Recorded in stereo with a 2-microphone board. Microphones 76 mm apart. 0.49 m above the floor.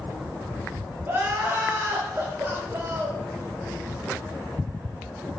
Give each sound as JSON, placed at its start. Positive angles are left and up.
{"t": 1.1, "sound": "crying", "side_deg": -30, "distance_m": 1.6}